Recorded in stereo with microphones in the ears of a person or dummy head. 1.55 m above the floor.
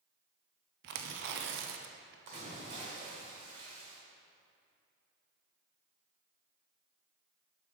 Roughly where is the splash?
Right.